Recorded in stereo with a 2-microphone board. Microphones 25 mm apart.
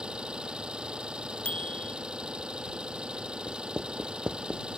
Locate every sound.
0.0 s an engine running: 45° right (ahead or behind)
1.4 s a bicycle bell: 85° left
3.5 s writing: 50° right (ahead or behind)